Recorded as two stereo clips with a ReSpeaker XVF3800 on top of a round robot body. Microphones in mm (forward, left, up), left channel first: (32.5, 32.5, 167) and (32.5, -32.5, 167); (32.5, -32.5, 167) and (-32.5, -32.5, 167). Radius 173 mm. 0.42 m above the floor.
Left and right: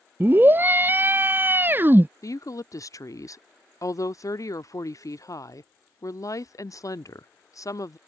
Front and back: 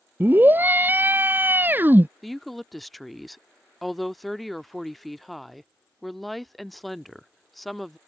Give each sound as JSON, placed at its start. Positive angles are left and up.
{"t": 0.2, "sound": "a scream", "azimuth_deg": -135}
{"t": 2.2, "sound": "a woman speaking", "azimuth_deg": 90}